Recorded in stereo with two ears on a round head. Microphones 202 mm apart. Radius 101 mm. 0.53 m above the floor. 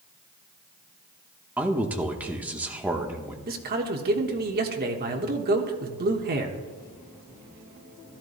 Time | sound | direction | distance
1.6 | a man speaking | 5° right (ahead or behind) | 0.9 m
3.5 | a man speaking | 40° right (ahead or behind) | 1.1 m